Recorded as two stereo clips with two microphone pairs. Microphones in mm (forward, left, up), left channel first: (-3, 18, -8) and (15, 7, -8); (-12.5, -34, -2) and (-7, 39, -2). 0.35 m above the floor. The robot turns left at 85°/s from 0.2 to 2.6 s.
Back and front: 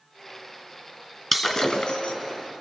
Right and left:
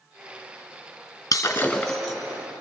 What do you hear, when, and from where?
1.3 s breaking glass: 135° right, 3 m; by 2.1 s 155° left, 3 m